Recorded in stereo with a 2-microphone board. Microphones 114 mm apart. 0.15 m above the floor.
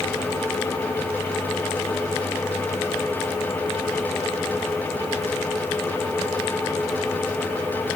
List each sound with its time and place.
Only background noise.